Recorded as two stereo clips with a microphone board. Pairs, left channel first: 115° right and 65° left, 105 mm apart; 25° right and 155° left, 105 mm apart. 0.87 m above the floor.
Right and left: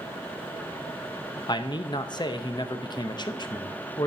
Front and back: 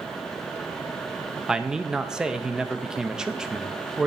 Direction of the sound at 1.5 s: 120° right.